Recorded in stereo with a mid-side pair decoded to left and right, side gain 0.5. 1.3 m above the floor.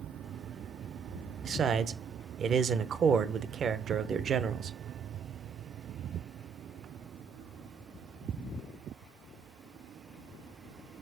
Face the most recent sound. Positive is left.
turn(degrees=-45)